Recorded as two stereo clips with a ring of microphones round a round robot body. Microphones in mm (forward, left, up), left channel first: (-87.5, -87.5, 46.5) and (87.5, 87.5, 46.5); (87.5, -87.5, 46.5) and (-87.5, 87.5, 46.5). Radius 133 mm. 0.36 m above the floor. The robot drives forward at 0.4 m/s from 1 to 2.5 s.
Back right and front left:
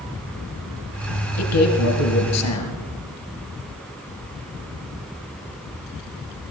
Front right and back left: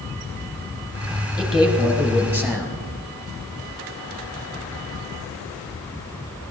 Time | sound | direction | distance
1.4 | a man speaking | 135° right | 2 m